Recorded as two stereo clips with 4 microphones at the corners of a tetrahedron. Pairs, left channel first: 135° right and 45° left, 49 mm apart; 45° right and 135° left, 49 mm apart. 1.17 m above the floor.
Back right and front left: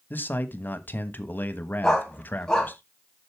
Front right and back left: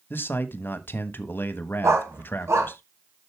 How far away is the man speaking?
About 1.2 m.